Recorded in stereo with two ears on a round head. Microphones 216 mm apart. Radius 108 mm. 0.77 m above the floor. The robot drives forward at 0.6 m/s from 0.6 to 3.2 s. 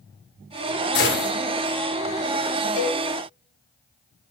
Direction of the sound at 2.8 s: 85° left.